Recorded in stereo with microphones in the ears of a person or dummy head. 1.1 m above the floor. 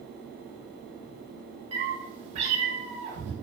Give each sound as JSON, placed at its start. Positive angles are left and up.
{"t": 1.7, "sound": "a cat meowing", "side_deg": -35, "distance_m": 0.8}